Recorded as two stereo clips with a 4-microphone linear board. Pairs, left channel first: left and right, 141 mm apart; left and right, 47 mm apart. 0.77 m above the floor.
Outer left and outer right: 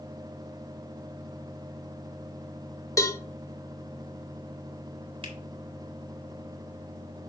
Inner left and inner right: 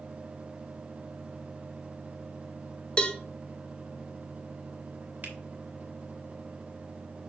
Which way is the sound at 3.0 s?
25° left (ahead or behind).